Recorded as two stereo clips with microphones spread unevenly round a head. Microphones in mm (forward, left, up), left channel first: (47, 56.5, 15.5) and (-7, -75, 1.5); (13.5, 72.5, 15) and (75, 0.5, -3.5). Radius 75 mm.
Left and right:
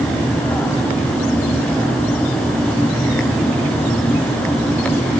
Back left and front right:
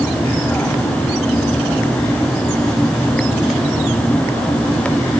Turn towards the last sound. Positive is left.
No sound to turn to.